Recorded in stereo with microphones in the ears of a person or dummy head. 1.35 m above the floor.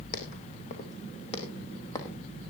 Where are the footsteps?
50° left (ahead or behind), 3 m; by 2.2 s 20° left (ahead or behind), 3 m.